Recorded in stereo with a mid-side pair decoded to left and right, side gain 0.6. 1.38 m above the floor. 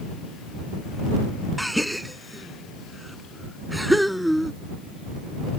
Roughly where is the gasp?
Ahead.